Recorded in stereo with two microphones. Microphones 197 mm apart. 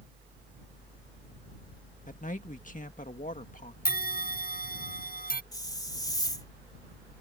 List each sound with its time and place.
2.1 s a man speaking: 45° left (ahead or behind)
3.9 s a bell: 55° left (ahead or behind)
5.5 s a hiss: 20° left (ahead or behind)